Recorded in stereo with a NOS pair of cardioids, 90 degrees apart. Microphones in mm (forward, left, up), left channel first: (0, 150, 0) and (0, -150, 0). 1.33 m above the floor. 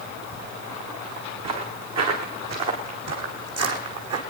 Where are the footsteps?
65° right, 6 m; by 4.2 s 55° right, 4.5 m.